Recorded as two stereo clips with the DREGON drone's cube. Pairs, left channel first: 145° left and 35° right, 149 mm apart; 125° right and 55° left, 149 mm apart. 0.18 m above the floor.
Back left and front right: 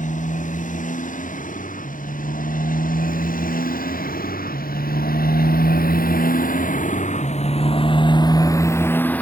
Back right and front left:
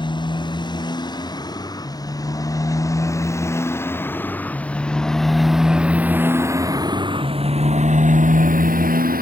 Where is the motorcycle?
175° left; by 9.2 s 65° left.